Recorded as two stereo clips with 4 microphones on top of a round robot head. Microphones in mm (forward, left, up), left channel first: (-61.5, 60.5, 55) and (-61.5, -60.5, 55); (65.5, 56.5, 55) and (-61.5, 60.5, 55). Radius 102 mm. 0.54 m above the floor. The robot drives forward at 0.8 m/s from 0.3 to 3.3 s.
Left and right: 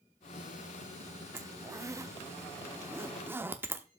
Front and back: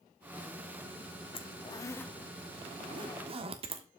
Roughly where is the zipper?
Ahead right.